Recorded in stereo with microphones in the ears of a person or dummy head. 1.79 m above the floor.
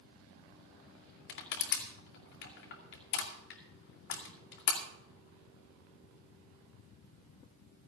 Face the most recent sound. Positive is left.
turn(degrees=50)  # may be behind; listen again after turning